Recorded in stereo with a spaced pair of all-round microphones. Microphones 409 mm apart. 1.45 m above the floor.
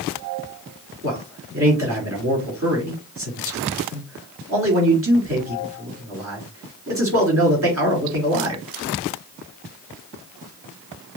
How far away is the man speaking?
About 3.5 m.